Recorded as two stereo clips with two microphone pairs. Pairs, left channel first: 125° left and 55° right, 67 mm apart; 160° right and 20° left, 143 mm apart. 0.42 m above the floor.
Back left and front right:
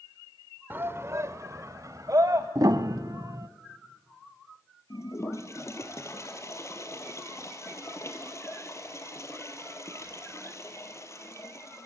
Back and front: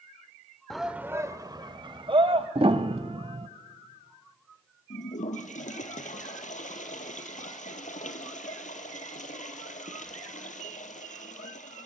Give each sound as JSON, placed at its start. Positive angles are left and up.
{"t": 0.7, "sound": "a shout", "azimuth_deg": -75, "distance_m": 0.9}
{"t": 2.5, "sound": "a piano", "azimuth_deg": -30, "distance_m": 0.8}
{"t": 4.9, "sound": "a toilet flushing", "azimuth_deg": 170, "distance_m": 2.0}